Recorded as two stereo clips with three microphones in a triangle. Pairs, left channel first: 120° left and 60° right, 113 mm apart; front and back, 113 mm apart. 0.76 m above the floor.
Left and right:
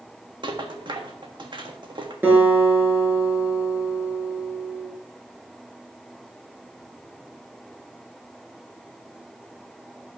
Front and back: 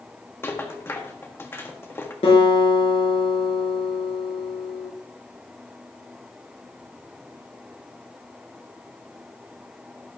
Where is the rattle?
60° right, 1.5 m.